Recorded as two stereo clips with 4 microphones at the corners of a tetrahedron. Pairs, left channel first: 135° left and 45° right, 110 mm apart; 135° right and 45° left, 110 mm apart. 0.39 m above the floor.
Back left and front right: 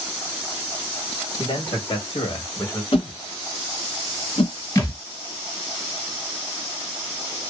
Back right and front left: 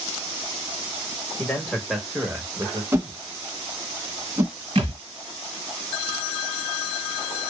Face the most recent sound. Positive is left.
turn(degrees=80)